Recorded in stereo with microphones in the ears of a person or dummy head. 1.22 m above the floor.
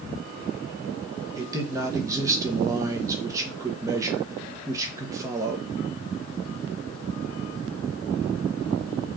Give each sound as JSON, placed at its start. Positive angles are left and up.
{"t": 1.4, "sound": "a man speaking", "side_deg": -20, "distance_m": 0.9}